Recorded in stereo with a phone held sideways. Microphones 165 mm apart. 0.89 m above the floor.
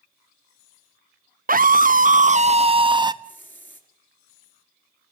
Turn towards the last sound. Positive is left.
turn(degrees=10)  # may be behind; listen again after turning